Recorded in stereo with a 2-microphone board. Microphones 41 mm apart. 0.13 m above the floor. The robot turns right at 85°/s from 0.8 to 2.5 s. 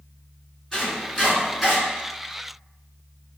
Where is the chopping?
20° left (ahead or behind), 1.7 m; by 1.8 s 5° right (ahead or behind), 1.7 m.